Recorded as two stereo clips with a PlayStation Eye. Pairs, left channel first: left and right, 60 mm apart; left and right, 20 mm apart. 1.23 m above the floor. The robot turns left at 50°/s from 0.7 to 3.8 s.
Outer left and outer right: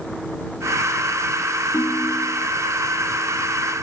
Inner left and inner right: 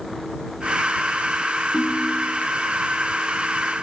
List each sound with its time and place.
1.7 s a ringtone: 65° left; by 2.5 s 25° left